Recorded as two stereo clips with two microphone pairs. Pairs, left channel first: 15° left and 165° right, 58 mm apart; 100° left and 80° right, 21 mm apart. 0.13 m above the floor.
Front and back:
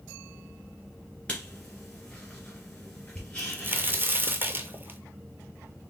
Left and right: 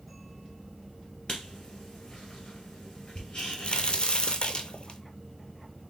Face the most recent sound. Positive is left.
turn(degrees=140)